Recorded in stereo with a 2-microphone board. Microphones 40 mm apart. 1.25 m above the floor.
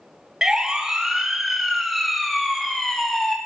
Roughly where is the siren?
Centre.